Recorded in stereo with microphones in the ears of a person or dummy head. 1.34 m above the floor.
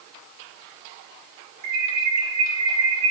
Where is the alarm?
80° right, 9 m.